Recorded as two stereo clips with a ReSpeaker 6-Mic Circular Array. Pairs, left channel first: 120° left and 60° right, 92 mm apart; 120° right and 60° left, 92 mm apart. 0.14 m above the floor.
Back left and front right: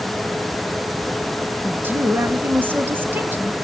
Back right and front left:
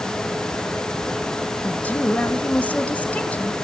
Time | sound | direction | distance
1.6 | a woman speaking | 75° right | 1.5 m